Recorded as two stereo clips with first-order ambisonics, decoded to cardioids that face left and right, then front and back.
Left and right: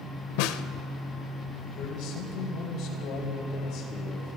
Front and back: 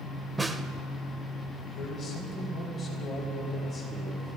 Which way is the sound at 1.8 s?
60° left.